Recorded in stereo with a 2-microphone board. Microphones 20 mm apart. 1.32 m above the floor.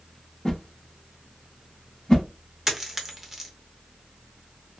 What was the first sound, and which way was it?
A whoosh, 40° left (ahead or behind).